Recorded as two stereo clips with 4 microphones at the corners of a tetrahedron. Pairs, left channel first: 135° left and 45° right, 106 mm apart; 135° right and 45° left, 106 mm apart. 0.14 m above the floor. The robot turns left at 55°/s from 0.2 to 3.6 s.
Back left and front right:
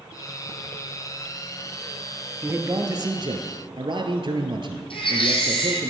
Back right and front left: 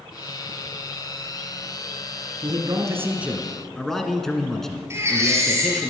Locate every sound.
2.4 s a man speaking: 15° left, 1.5 m; by 5.9 s 50° right, 1.5 m
4.9 s a baby crying: 110° left, 2.5 m